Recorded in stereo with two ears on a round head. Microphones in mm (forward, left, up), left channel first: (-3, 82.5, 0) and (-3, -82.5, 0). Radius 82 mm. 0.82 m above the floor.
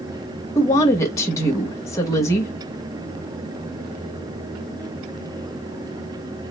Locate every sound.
0.6 s a woman speaking: 15° left (ahead or behind), 0.8 m